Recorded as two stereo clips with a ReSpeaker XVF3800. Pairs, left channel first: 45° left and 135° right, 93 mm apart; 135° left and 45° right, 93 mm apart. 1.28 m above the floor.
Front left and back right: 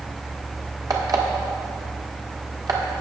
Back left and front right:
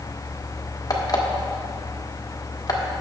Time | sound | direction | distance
0.9 | an alarm clock | 175° right | 1.4 m